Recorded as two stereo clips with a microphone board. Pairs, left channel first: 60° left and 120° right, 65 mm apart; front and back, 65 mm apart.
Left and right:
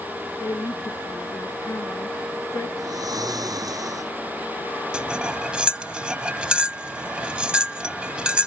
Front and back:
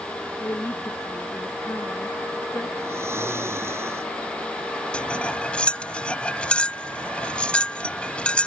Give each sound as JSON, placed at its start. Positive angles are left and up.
{"t": 0.4, "sound": "a woman speaking", "azimuth_deg": 35}
{"t": 2.8, "sound": "snoring", "azimuth_deg": -135}
{"t": 4.9, "sound": "cutlery clinking", "azimuth_deg": -55}